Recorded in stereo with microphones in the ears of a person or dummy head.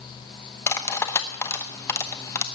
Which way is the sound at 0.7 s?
20° left (ahead or behind).